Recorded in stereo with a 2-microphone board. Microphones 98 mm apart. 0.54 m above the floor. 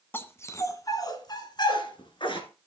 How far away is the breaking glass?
No breaking glass in this recording.